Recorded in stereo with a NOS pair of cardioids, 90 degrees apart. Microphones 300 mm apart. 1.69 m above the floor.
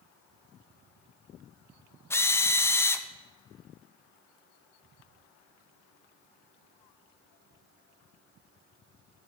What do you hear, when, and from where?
2.1 s a drill: 10° left, 0.7 m